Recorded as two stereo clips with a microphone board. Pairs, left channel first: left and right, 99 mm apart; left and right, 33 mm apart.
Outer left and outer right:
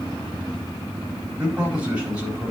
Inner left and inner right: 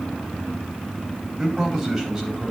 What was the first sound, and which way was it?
A man speaking, 15° right (ahead or behind).